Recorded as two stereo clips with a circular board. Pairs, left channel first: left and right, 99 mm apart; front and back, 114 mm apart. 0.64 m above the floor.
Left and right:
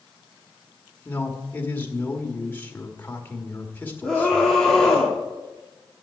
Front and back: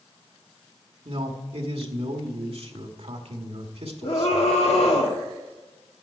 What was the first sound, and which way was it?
A man speaking, 160° left.